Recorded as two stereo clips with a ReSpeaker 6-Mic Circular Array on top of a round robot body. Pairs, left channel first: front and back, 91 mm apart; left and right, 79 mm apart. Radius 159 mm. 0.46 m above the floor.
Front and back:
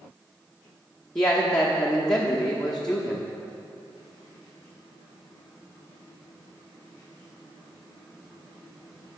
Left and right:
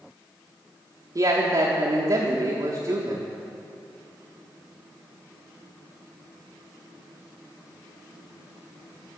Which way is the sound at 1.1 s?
80° right.